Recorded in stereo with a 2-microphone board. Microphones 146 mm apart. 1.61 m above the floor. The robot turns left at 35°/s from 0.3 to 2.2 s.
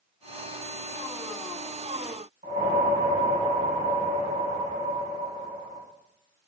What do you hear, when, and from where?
2.4 s a whoosh: 80° right, 1.2 m